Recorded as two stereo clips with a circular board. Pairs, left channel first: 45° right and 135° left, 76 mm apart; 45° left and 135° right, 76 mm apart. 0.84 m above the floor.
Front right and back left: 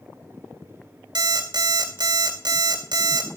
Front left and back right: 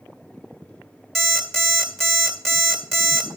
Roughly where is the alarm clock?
Behind left.